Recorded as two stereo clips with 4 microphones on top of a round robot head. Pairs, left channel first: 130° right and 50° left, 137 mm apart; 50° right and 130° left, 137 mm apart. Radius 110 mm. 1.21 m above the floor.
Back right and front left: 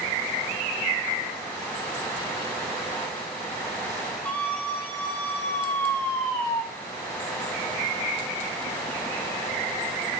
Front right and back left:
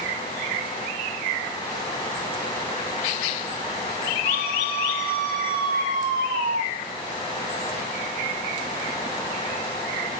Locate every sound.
4.2 s a scream: 150° left, 4.5 m; by 6.6 s 160° left, 2.5 m